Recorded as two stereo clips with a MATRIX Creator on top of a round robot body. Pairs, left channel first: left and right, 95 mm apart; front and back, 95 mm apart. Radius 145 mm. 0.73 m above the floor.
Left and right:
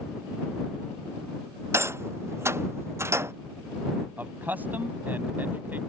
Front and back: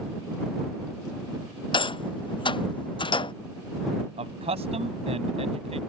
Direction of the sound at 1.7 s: 30° right.